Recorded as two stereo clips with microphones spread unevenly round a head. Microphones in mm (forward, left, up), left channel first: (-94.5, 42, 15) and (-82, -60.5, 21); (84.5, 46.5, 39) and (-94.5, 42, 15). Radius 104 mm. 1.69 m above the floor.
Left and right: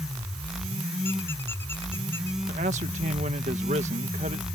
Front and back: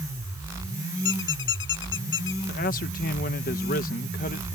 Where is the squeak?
15° left.